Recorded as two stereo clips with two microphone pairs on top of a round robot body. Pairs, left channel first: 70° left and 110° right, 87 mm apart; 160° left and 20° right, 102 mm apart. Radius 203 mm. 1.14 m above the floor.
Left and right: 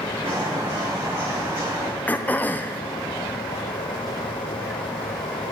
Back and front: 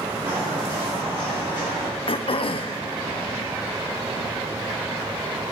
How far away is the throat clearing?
About 0.8 m.